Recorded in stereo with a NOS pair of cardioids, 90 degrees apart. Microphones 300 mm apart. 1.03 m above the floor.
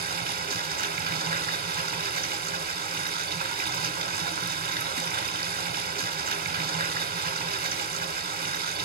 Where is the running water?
35° right, 1.6 m.